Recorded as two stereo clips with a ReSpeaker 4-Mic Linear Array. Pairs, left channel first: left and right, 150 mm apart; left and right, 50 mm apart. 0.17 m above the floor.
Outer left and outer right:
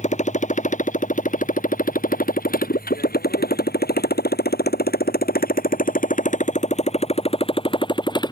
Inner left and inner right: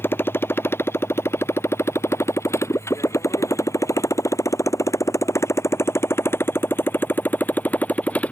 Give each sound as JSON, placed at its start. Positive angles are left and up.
{"t": 0.0, "sound": "a motorcycle", "side_deg": 50}